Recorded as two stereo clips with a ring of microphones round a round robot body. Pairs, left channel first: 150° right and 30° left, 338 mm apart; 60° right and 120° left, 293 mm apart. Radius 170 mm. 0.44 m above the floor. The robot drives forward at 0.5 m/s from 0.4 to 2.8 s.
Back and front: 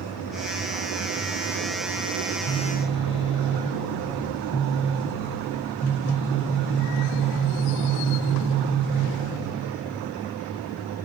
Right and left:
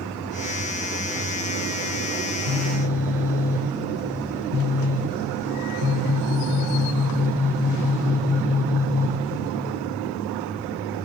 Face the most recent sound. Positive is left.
turn(degrees=115)